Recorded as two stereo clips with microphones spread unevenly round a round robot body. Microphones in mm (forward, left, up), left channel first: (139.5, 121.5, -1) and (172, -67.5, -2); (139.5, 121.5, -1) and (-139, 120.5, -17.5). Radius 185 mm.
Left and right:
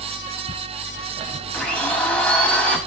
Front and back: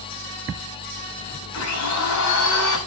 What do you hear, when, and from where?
1.5 s a blender: 15° left, 5.5 m